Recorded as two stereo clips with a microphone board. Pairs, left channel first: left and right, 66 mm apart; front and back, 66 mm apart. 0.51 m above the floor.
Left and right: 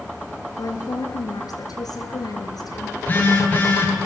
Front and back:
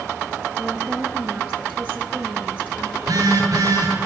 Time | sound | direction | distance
0.6 | a woman speaking | 110° left | 9 m
3.0 | a phone buzzing | 155° left | 10 m